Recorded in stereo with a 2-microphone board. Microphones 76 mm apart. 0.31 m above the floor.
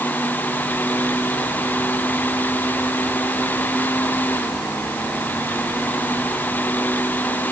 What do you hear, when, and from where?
Only background noise.